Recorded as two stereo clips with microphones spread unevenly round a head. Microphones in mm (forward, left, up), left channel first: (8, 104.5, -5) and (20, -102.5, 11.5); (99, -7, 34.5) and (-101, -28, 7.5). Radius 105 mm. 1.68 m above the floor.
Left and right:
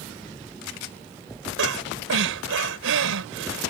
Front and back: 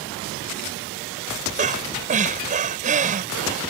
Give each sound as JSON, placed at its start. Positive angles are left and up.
{"t": 1.6, "sound": "breathing", "azimuth_deg": -120}